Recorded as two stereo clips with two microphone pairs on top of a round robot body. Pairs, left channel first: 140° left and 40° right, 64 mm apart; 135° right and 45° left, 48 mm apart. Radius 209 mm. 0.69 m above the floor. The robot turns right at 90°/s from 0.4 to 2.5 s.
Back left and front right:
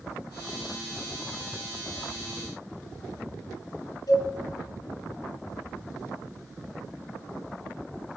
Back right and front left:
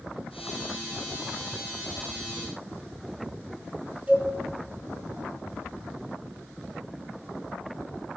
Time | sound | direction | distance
4.1 | a cowbell | 110° left | 4 m